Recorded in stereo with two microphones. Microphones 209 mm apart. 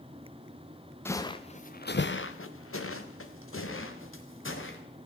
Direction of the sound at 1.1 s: 10° left (ahead or behind).